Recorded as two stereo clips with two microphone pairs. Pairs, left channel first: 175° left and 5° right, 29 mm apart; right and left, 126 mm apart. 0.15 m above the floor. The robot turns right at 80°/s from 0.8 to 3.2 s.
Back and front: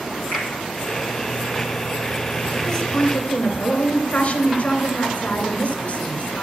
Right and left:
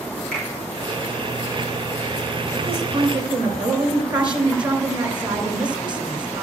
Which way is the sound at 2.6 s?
80° left.